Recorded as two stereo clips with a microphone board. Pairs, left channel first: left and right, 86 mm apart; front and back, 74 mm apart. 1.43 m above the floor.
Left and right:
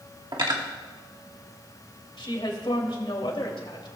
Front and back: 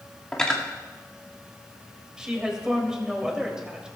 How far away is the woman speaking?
About 3 m.